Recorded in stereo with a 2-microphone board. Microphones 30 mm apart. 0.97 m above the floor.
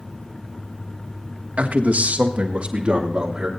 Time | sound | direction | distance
1.6 | a man speaking | 55° right (ahead or behind) | 1.5 m